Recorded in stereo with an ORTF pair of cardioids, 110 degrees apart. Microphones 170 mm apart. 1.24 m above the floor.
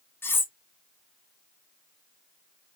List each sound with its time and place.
0.2 s cutlery clinking: 15° left, 0.9 m